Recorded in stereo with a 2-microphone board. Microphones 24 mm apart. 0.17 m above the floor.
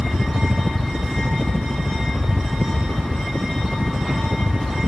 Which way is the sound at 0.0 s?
5° right (ahead or behind).